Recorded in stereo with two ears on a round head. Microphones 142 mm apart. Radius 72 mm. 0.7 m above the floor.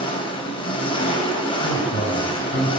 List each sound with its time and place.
0.0 s an engine running: 35° left (ahead or behind), 2.5 m
1.6 s a man speaking: 45° left (ahead or behind), 4 m